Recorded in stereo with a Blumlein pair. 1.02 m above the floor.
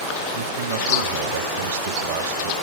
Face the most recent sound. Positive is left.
turn(degrees=-60)